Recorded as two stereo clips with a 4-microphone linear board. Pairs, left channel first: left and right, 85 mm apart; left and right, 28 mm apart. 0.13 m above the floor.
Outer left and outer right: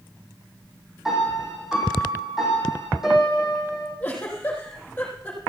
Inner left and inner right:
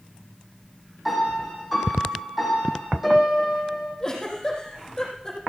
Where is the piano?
5° right (ahead or behind), 6 m.